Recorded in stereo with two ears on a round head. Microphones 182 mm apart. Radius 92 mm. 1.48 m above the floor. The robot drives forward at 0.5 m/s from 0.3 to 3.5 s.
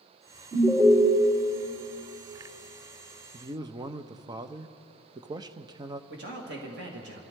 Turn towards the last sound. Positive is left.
turn(degrees=-55)  # may be behind; listen again after turning